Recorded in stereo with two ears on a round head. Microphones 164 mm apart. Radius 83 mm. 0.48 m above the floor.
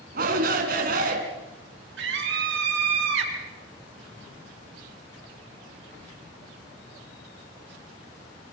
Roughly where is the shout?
Right.